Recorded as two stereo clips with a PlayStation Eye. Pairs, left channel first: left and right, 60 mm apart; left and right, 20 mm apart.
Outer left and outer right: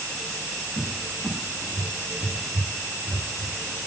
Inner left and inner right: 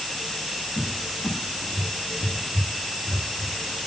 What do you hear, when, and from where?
0.8 s a cupboard door: 35° right (ahead or behind), 5 m